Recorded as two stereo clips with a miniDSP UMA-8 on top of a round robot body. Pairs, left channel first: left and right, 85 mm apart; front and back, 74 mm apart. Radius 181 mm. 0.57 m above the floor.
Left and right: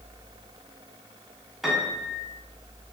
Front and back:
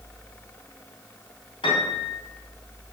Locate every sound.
1.6 s a piano: 5° right, 2.5 m